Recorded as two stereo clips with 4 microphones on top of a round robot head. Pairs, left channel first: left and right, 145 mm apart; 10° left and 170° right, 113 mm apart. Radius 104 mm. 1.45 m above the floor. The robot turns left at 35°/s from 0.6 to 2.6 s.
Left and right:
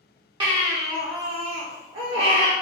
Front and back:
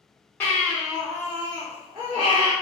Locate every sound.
0.4 s a baby crying: 60° right, 0.7 m; by 2.5 s 130° right, 0.7 m